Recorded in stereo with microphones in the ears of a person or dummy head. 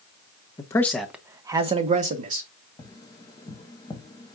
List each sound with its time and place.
0.6 s a man speaking: 25° left (ahead or behind), 0.6 m; by 2.5 s 50° right (ahead or behind), 1.0 m
2.8 s tapping: 20° left (ahead or behind), 0.7 m